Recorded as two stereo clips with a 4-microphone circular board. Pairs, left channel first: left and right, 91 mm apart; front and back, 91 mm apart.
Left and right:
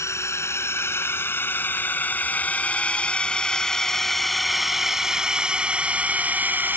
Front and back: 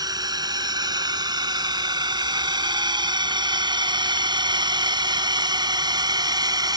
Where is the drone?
145° left; by 6.8 s 155° right.